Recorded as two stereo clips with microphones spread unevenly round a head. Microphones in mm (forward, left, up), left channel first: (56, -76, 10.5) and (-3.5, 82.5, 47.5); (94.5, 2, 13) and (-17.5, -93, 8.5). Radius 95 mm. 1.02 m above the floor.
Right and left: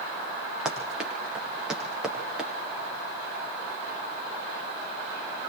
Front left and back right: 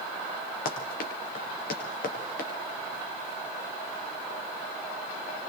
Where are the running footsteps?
25° left, 6.5 m.